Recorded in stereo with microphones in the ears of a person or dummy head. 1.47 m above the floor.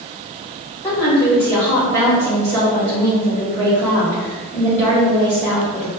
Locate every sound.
0.8 s a woman speaking: 10° left (ahead or behind), 2.0 m